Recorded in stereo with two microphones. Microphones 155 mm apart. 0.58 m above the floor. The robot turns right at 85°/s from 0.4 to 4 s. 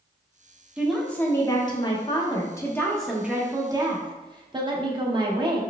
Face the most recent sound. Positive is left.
turn(degrees=-100)